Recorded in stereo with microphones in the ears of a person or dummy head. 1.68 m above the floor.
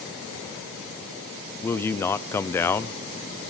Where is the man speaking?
10° left (ahead or behind), 0.9 m.